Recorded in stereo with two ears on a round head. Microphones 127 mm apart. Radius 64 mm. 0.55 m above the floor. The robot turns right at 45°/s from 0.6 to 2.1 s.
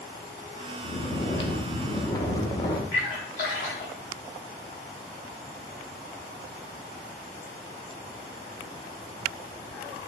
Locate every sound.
0.8 s snoring: 75° left, 0.7 m; by 2.8 s 130° left, 0.7 m
2.9 s a splash: 55° left (ahead or behind), 3 m